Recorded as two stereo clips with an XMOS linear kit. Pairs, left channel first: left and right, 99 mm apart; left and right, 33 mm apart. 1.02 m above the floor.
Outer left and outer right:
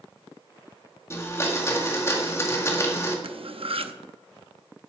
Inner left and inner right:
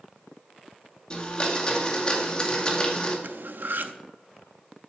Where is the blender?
25° left (ahead or behind), 1.9 m.